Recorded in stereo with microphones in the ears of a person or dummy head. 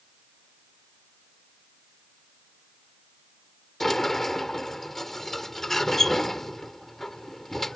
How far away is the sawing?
I don't hear sawing.